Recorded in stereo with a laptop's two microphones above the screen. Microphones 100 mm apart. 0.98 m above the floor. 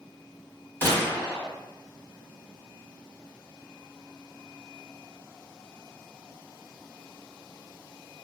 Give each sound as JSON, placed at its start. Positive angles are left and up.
{"t": 0.8, "sound": "a gunshot", "side_deg": 20, "distance_m": 1.8}